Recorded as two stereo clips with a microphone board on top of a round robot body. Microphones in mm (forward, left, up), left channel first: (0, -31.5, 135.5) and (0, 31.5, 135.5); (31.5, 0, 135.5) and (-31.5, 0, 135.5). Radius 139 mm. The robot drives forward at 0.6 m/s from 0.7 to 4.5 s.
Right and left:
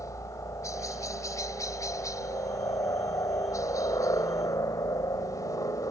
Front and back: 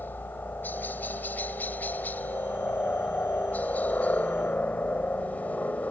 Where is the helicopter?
60° right; by 5.9 s 65° right.